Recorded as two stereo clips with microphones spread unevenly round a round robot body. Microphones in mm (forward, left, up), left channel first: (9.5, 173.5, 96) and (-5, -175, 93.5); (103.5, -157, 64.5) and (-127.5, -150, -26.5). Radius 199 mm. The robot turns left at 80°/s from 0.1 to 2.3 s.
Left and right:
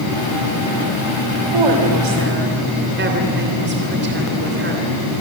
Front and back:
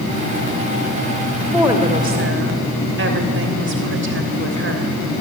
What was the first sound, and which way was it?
A woman speaking, 85° right.